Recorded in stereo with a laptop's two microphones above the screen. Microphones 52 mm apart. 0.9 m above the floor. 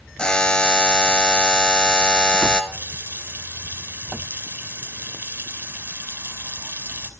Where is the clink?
I don't hear a clink.